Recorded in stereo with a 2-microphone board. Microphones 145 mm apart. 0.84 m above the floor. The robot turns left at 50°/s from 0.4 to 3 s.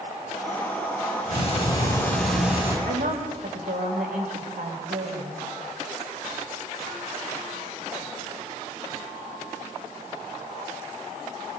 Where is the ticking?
55° left, 6 m; by 2.8 s 20° right, 6 m.